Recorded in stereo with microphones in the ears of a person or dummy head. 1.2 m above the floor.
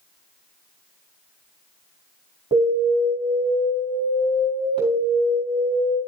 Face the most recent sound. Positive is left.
turn(degrees=-30)  # may be behind; listen again after turning